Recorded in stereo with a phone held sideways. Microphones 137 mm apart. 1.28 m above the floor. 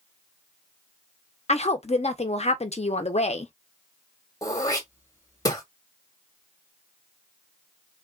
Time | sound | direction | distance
1.5 | a woman speaking | 50° left (ahead or behind) | 0.7 m
4.4 | throat clearing | 25° left (ahead or behind) | 1.1 m